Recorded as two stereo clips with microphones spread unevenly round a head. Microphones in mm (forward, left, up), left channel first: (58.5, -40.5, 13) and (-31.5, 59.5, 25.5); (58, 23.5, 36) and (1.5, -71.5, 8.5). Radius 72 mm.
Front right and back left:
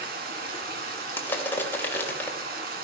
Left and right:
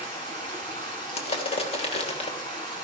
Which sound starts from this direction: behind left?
Running water, at 0.0 s.